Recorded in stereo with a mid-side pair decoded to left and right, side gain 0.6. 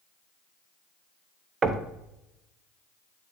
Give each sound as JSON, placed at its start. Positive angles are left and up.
{"t": 1.6, "sound": "knocking", "azimuth_deg": -30, "distance_m": 0.7}